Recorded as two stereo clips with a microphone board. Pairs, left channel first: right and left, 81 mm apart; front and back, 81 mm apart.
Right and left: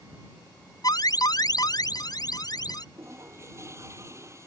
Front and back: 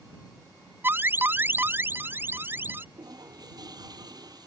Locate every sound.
0.8 s an alarm: 120° right
3.0 s a toilet flushing: 145° left